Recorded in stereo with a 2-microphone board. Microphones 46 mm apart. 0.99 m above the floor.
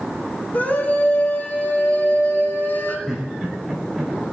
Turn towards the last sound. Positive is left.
turn(degrees=-5)  # may be behind; listen again after turning